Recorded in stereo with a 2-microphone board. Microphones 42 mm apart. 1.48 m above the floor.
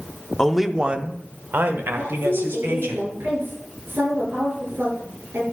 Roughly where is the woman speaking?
Right.